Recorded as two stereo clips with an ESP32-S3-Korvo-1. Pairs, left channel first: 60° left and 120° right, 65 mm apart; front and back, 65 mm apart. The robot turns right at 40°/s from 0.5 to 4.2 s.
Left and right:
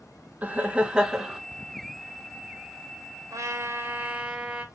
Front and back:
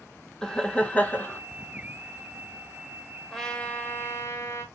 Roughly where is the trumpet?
Right.